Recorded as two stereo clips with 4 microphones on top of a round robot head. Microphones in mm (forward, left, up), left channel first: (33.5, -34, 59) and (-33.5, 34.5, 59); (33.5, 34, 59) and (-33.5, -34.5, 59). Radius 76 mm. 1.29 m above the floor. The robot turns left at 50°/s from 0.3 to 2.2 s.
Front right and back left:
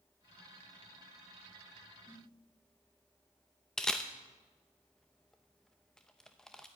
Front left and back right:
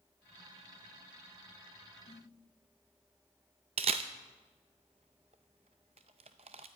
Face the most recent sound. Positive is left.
turn(degrees=-130)